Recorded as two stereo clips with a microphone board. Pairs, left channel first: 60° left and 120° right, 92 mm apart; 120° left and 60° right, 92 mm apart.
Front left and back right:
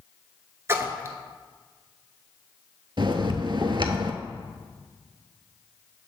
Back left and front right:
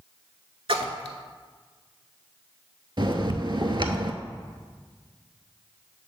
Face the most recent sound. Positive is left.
turn(degrees=-90)